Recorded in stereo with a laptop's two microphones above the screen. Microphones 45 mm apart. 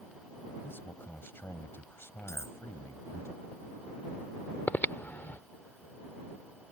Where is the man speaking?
50° left (ahead or behind); by 3.3 s 65° left (ahead or behind).